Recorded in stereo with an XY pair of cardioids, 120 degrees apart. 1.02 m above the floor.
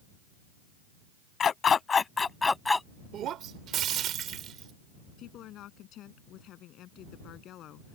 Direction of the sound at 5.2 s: 65° left.